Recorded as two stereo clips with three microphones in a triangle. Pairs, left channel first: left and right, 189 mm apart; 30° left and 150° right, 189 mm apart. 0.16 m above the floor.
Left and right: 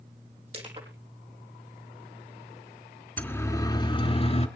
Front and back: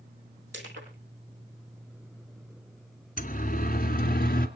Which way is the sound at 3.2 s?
15° left.